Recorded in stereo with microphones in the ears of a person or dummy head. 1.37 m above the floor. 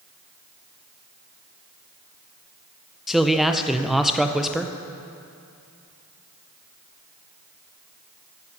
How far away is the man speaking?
About 0.5 m.